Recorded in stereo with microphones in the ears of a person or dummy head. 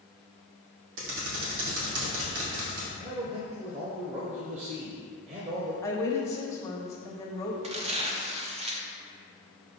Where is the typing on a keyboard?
75° right (ahead or behind), 1.8 m.